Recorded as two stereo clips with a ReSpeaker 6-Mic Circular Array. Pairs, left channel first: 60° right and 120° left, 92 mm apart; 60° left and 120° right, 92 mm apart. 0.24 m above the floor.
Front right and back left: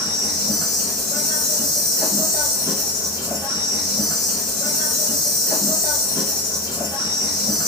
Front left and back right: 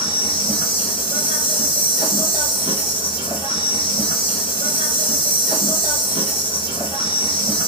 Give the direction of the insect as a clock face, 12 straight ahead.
10 o'clock.